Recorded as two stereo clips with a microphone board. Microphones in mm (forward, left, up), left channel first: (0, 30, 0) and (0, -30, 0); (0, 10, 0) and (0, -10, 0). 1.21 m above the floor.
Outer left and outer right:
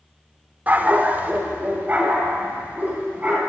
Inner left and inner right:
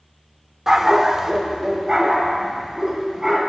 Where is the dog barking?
25° right (ahead or behind), 1.0 m.